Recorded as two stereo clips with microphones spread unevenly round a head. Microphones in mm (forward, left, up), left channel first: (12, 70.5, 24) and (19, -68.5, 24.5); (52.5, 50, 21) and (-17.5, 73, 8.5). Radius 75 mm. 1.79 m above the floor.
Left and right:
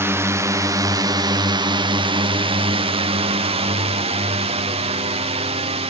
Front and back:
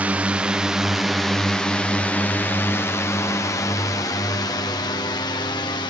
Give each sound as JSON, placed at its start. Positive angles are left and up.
{"t": 0.0, "sound": "a drone", "azimuth_deg": -150}